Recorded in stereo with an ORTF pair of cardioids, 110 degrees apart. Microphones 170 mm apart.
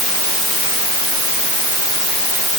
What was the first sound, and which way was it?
Only background noise.